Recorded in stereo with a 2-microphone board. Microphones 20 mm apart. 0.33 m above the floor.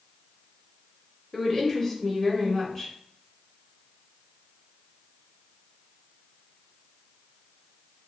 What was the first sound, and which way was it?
A woman speaking, 20° left (ahead or behind).